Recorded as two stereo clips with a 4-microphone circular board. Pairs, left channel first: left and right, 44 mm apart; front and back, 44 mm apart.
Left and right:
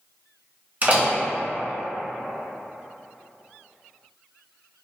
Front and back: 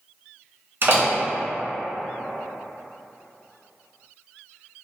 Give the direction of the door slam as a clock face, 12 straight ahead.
5 o'clock.